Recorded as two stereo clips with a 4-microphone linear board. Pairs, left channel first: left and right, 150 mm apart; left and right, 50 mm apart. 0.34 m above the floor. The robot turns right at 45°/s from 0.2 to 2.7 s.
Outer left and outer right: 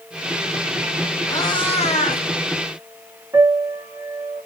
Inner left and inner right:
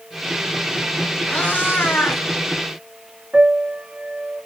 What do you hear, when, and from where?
1.3 s a cat meowing: 20° left, 0.8 m; by 2.2 s 65° left, 0.8 m
3.3 s a piano: 25° right (ahead or behind), 0.7 m